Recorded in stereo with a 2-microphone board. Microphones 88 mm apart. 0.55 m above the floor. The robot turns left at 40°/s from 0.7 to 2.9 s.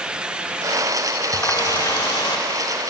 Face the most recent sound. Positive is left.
turn(degrees=80)